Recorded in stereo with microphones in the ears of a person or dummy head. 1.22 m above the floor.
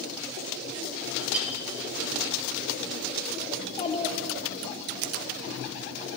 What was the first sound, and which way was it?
A clink, 10° right (ahead or behind).